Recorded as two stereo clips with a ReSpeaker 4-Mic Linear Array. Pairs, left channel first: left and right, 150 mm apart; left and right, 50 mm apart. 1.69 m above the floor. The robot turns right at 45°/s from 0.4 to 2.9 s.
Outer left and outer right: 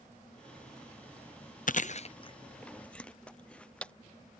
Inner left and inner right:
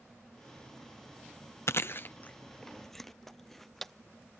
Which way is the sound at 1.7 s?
60° left (ahead or behind).